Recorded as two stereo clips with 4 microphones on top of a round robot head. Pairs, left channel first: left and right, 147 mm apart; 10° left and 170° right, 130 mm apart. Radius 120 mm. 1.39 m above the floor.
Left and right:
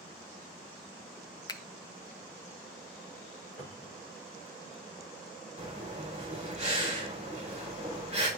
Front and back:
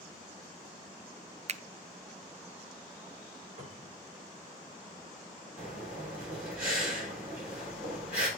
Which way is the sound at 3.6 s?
170° left.